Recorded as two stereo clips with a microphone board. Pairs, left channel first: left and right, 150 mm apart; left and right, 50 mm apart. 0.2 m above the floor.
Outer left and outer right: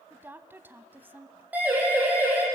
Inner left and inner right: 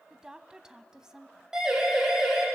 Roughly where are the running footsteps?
I don't hear running footsteps.